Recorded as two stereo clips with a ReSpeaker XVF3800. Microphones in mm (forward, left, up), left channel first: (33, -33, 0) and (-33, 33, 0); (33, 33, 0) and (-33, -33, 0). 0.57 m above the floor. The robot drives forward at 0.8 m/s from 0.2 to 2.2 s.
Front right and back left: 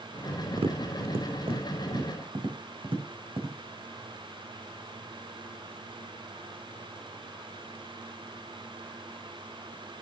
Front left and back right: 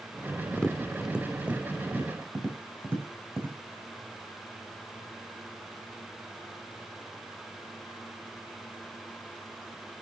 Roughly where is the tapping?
Behind left.